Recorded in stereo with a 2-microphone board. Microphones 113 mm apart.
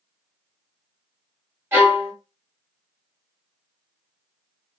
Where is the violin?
20° right (ahead or behind), 1.3 m.